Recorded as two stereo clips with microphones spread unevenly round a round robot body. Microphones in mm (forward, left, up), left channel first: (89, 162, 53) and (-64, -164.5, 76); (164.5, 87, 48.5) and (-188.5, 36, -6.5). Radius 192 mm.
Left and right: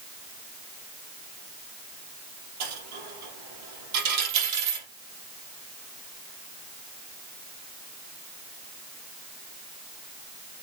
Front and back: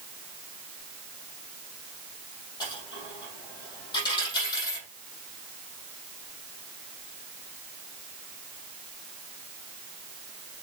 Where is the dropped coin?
70° right, 3 m.